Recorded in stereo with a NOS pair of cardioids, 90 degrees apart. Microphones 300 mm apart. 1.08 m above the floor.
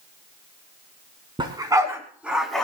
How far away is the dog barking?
About 4.5 m.